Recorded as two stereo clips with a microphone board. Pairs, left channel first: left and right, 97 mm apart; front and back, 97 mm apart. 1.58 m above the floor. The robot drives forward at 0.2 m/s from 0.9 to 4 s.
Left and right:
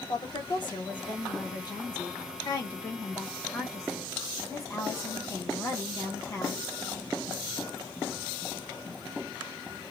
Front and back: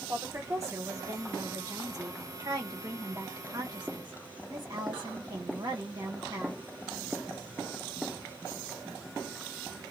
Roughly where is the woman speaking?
Behind left.